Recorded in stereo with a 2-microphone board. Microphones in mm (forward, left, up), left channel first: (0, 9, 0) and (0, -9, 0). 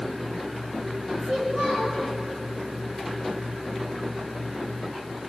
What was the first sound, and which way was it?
A child speaking, 35° right (ahead or behind).